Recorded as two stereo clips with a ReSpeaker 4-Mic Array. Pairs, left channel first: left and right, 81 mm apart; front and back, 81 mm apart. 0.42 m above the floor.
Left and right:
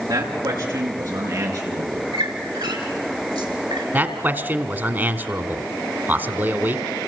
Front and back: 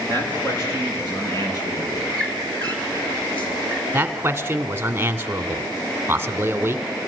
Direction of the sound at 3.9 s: 135° right.